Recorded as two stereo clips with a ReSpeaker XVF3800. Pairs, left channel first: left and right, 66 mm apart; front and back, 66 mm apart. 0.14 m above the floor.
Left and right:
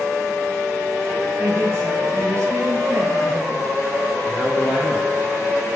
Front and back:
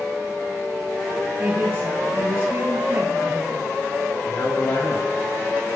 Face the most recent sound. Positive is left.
turn(degrees=-20)